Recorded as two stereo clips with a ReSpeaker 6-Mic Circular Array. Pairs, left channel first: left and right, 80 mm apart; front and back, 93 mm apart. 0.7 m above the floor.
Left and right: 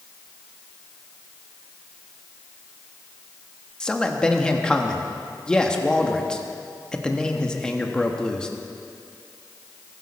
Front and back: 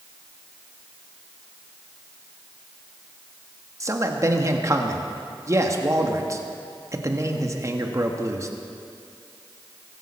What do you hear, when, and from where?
3.8 s a man speaking: 165° left, 1.3 m